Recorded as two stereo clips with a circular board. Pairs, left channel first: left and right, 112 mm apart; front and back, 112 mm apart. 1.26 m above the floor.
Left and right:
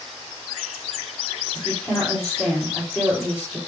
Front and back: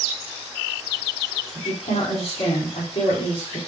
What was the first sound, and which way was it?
A woman speaking, 10° left.